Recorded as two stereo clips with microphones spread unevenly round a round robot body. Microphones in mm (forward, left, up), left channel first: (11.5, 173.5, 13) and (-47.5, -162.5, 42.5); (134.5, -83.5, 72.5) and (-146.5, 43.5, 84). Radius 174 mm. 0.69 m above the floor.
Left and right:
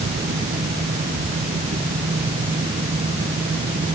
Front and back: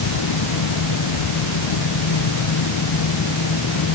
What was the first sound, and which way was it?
Only background noise.